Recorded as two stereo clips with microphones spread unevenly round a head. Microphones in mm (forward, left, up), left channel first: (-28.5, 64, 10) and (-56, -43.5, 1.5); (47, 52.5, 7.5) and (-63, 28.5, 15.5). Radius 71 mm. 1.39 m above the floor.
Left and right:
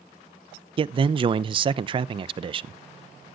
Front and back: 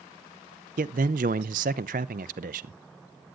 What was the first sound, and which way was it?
A man speaking, 150° right.